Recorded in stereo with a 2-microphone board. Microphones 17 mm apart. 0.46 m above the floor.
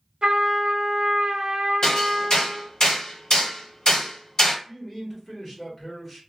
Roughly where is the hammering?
Left.